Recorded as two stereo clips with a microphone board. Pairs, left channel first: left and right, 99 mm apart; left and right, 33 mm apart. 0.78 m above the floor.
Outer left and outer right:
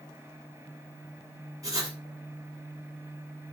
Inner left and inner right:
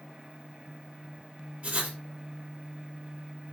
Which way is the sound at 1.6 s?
30° right (ahead or behind).